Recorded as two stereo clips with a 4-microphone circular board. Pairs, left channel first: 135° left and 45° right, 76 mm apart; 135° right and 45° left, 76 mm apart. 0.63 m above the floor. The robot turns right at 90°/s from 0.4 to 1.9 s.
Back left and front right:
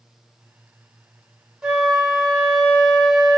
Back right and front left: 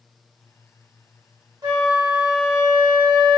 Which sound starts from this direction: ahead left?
A flute, at 1.6 s.